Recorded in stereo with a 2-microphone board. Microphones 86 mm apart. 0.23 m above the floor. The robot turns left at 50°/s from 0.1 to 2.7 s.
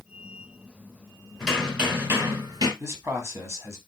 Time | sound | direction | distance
1.4 | hammering | 5° left | 2 m
2.8 | a man speaking | 30° right (ahead or behind) | 1.3 m